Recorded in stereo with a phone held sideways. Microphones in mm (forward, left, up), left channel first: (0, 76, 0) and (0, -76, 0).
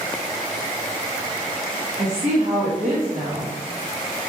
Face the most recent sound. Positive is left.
turn(degrees=-55)  # may be behind; listen again after turning